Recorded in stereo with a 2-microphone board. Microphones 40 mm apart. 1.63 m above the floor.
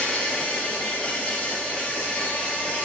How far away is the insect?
About 1.8 m.